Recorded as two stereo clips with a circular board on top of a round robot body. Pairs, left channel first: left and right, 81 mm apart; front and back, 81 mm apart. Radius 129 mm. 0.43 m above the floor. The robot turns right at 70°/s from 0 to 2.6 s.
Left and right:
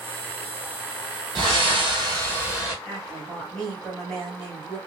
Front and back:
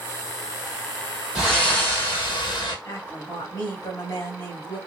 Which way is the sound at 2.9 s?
10° left.